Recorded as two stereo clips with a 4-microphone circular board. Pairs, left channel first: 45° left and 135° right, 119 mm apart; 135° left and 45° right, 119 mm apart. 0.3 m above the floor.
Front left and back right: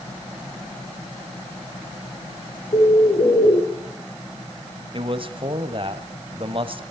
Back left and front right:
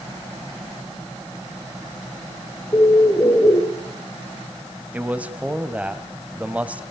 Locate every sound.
2.7 s a bird: 75° left, 3 m
4.9 s a man speaking: 120° right, 1.7 m